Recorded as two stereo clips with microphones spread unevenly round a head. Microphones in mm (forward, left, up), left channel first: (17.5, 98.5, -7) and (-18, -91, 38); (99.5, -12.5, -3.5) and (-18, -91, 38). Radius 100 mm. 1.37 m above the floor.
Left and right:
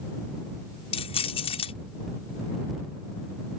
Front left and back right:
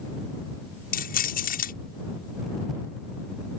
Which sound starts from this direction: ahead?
Keys jangling, at 0.9 s.